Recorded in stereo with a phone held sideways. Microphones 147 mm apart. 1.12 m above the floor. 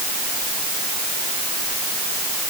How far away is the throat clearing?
I don't hear throat clearing.